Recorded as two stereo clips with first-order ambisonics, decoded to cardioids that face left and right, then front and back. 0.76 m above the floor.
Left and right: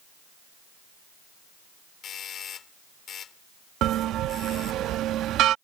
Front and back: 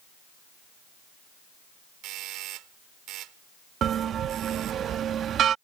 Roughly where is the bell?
Behind right.